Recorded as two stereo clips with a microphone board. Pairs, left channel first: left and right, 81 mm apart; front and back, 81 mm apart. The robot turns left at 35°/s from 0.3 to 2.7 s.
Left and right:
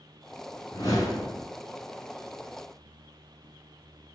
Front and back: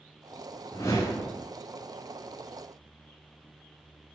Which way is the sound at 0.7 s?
55° left.